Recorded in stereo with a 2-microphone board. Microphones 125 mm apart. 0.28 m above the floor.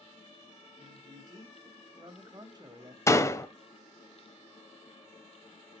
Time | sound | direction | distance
0.8 | a man speaking | 35° right (ahead or behind) | 1.9 m
3.1 | a door slam | 25° left (ahead or behind) | 0.8 m